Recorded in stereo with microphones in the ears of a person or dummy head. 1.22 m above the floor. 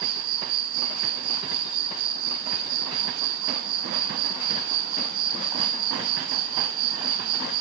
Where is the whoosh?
I don't hear a whoosh.